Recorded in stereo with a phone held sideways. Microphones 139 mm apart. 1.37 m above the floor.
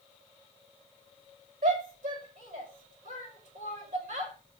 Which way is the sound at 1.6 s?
80° right.